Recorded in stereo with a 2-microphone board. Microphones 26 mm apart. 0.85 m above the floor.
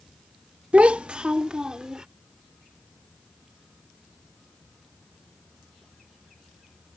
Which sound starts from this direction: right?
A child speaking, at 0.7 s.